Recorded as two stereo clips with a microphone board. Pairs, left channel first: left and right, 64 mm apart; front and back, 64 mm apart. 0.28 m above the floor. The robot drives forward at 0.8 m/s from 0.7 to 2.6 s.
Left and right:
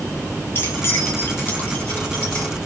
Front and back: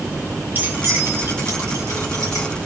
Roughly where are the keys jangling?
Behind left.